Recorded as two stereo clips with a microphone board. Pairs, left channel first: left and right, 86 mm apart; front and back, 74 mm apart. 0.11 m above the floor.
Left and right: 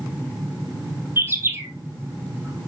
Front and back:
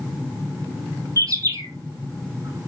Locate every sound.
1.2 s a bird: 150° right, 2.5 m